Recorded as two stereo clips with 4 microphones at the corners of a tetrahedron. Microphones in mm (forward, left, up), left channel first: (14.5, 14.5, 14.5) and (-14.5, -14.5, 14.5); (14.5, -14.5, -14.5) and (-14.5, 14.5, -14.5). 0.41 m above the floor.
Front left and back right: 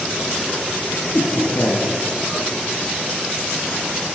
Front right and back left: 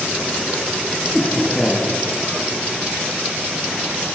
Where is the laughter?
45° left, 9 m.